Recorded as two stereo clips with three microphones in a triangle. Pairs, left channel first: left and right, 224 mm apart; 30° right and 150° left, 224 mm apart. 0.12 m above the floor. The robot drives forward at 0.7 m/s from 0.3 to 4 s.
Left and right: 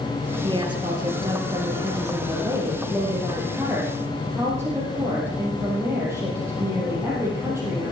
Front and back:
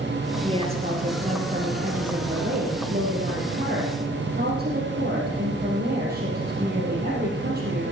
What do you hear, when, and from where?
0.4 s a woman speaking: 150° right, 2.5 m; by 7.9 s 170° right, 4.5 m